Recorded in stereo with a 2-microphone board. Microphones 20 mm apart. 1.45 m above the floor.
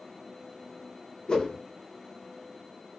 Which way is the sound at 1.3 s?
50° left (ahead or behind).